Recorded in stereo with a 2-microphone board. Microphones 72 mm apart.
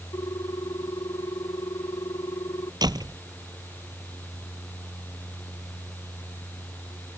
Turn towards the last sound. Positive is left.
turn(degrees=-70)  # may be behind; listen again after turning